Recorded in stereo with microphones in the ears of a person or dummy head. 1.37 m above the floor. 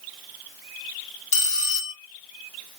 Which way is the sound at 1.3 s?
40° left (ahead or behind).